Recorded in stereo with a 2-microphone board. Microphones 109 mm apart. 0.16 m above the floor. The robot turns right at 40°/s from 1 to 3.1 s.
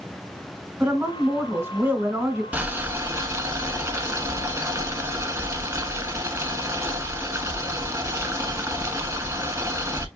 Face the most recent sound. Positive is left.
turn(degrees=-30)  # may be behind; listen again after turning